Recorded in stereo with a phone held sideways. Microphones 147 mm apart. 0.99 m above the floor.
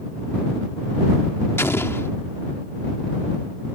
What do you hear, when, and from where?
1.6 s an explosion: 15° left (ahead or behind)